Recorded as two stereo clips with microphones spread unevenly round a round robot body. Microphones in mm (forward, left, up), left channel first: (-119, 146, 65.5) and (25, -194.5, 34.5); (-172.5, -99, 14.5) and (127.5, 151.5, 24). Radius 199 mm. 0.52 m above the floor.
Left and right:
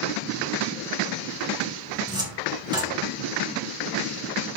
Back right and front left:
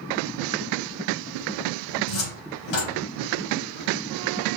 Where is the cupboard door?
145° right, 3 m.